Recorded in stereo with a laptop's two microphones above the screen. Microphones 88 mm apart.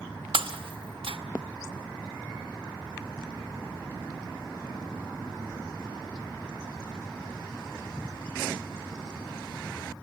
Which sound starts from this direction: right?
Breaking glass, at 0.3 s.